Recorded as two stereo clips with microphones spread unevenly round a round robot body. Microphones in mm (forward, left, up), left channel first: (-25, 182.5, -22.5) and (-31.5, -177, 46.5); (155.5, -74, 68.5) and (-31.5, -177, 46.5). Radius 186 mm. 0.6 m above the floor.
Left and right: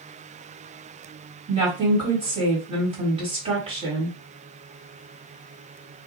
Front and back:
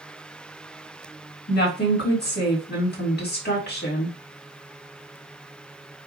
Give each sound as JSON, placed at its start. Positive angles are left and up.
{"t": 1.5, "sound": "a woman speaking", "azimuth_deg": -10, "distance_m": 1.8}